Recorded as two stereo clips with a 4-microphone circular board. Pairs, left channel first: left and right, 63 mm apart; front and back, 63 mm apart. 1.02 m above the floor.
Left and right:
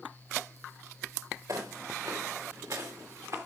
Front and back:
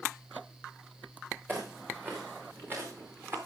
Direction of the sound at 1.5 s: 120° right.